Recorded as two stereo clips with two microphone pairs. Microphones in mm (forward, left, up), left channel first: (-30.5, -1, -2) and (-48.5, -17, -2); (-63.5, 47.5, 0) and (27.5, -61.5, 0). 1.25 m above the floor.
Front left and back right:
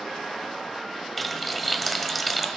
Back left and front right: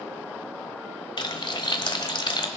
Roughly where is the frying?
Behind left.